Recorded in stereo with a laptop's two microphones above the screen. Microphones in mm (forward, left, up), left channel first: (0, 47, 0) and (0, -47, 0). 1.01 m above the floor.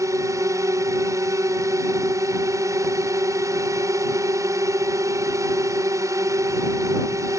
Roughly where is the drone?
Right.